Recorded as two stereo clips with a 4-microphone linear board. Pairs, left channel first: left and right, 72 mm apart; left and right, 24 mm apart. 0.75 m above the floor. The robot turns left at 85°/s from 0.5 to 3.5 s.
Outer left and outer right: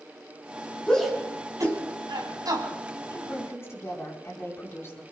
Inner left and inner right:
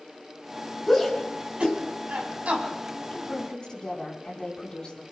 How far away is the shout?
About 5.5 m.